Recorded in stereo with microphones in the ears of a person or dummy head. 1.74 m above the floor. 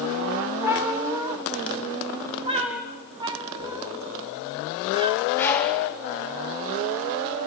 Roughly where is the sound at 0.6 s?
Centre.